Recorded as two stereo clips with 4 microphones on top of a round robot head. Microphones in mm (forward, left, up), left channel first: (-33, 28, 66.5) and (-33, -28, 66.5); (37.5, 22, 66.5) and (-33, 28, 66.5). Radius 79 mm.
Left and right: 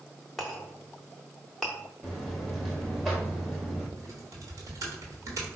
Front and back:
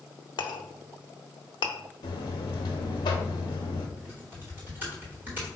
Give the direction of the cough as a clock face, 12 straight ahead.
I don't hear a cough.